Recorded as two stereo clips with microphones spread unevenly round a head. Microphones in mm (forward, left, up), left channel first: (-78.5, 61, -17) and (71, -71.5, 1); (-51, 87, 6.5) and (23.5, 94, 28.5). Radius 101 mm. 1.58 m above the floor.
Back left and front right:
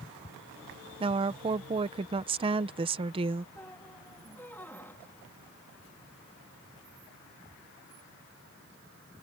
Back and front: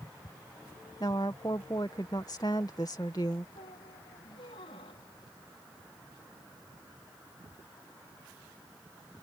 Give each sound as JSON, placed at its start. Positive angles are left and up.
{"t": 1.0, "sound": "a woman speaking", "azimuth_deg": -105}
{"t": 3.5, "sound": "a squeak", "azimuth_deg": -140}